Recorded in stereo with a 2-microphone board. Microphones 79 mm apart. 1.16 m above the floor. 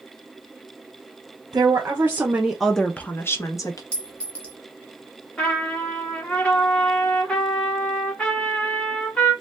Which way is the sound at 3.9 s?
15° left (ahead or behind).